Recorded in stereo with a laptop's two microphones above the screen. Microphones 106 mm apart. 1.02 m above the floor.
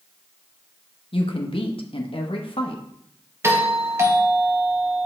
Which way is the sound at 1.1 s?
55° left (ahead or behind).